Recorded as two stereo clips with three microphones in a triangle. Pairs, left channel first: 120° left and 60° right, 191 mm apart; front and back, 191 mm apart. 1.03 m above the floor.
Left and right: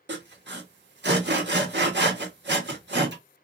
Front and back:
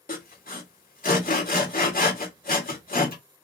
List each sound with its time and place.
0.1 s sawing: 40° right, 1.2 m